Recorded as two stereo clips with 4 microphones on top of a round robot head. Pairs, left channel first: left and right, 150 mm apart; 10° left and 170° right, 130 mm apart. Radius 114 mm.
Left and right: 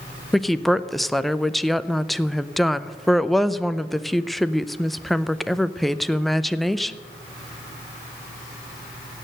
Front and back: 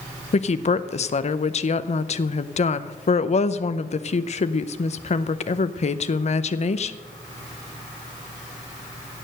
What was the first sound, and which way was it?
A woman speaking, straight ahead.